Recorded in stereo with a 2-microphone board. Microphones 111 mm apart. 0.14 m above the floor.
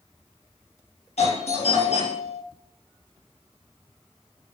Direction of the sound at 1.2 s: 65° left (ahead or behind).